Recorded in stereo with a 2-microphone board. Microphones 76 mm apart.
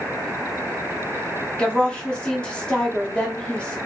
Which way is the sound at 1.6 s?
15° left (ahead or behind).